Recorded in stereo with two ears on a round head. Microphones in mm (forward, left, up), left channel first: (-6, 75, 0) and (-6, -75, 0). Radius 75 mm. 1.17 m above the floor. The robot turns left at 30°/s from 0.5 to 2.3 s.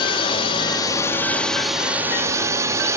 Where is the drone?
35° left; by 3.0 s 20° right.